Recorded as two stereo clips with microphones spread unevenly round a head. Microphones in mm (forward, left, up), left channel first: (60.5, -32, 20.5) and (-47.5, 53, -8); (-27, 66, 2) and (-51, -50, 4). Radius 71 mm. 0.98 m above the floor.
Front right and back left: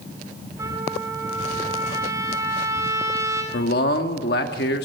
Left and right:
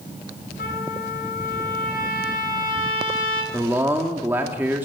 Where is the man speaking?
25° right, 2.5 m.